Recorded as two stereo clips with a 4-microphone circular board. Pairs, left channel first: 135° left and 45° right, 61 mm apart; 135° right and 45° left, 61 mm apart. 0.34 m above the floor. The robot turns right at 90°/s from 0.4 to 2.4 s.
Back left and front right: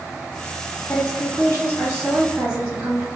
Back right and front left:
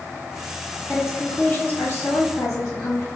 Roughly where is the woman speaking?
Left.